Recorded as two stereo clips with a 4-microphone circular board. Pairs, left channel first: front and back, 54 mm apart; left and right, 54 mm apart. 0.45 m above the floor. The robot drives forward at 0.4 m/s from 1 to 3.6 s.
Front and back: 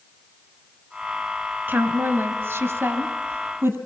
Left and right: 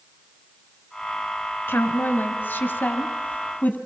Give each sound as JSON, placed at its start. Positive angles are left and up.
{"t": 1.7, "sound": "a woman speaking", "azimuth_deg": 135, "distance_m": 2.0}